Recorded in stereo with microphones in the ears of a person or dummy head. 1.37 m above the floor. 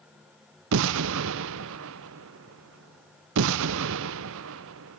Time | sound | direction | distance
0.7 | an explosion | 65° right (ahead or behind) | 0.6 m